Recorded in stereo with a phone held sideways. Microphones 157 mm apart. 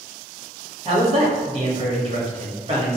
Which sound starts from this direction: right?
A man speaking, at 0.8 s.